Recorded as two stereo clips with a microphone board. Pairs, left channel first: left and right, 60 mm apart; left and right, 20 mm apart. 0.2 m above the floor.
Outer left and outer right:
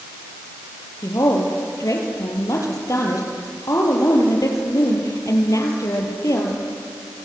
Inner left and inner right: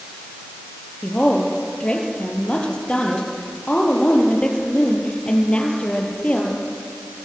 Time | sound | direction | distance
1.0 | a woman speaking | 65° left (ahead or behind) | 5 m